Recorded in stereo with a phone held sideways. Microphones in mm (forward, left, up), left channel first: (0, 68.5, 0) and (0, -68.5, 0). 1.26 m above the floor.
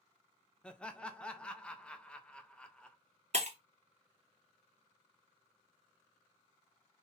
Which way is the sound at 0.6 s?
5° left (ahead or behind).